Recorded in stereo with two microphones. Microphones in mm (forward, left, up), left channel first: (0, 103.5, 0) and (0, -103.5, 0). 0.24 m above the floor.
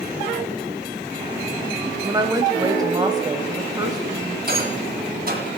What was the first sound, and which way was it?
A woman speaking, 20° right (ahead or behind).